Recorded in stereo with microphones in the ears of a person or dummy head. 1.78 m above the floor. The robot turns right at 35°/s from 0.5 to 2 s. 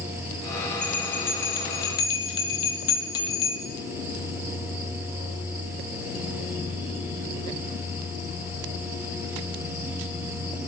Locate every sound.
0.8 s a bell: centre (ahead or behind), 0.6 m; by 3.6 s 25° left (ahead or behind), 0.6 m